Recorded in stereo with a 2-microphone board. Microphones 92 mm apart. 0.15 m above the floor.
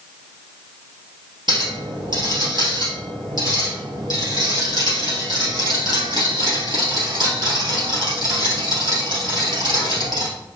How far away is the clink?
About 2 m.